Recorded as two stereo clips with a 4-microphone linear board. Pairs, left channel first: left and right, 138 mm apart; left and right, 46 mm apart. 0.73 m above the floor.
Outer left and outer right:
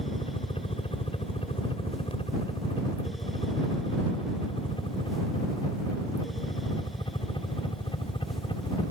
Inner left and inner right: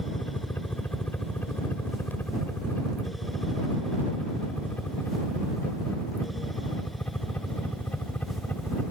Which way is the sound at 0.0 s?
40° left (ahead or behind).